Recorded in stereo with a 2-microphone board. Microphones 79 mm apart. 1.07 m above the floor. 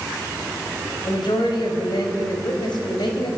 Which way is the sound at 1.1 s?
75° left (ahead or behind).